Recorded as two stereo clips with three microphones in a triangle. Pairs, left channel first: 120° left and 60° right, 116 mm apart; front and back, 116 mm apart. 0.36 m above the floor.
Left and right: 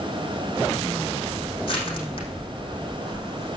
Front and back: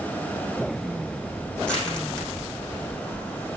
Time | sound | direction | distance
1.6 | crushing | 80° left | 6 m